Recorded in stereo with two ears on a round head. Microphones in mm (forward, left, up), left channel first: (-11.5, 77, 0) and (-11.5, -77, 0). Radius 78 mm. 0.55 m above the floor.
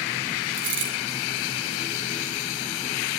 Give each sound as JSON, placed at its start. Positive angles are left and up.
{"t": 0.5, "sound": "a dropped coin", "side_deg": -75, "distance_m": 6.5}